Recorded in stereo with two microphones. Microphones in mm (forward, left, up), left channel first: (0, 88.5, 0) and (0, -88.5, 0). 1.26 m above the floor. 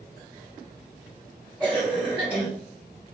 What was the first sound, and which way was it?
A cough, 10° right (ahead or behind).